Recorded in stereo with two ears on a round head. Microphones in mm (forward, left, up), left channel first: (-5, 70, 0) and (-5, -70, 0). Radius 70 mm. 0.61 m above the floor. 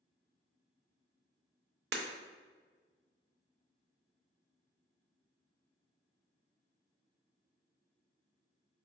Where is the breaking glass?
75° right (ahead or behind), 0.6 m.